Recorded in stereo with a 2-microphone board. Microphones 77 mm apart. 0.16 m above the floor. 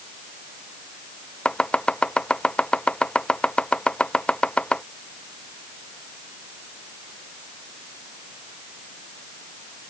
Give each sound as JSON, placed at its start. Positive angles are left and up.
{"t": 1.4, "sound": "chopping", "side_deg": 15}